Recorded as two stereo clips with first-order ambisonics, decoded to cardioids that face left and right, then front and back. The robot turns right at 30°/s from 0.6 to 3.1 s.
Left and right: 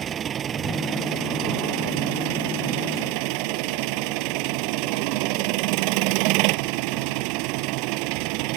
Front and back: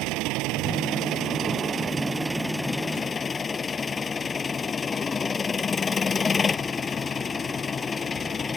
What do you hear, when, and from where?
0.0 s an engine running: 150° right; by 8.6 s 75° right